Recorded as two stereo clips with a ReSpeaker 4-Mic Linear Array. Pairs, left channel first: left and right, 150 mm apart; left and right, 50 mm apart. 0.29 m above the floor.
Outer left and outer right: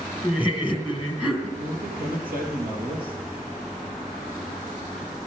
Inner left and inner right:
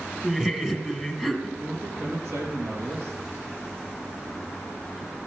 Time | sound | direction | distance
0.2 | laughter | 10° right (ahead or behind) | 2.5 m
1.6 | a man speaking | 70° right (ahead or behind) | 4 m